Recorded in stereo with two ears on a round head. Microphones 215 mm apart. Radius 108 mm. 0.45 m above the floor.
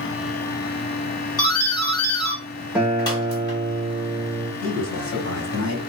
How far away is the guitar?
About 0.8 m.